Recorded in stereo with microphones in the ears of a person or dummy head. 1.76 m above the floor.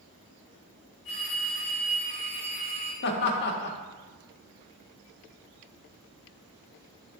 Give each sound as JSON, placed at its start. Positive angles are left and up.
{"t": 1.1, "sound": "a phone ringing", "side_deg": 60, "distance_m": 2.5}
{"t": 3.0, "sound": "laughter", "side_deg": 55, "distance_m": 1.1}